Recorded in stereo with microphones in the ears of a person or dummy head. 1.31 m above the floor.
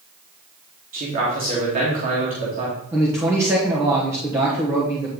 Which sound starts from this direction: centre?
A man speaking, at 2.9 s.